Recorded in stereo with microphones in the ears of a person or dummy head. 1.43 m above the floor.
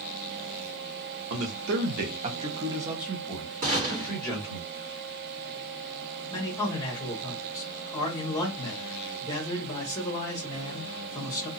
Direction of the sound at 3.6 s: 35° right (ahead or behind).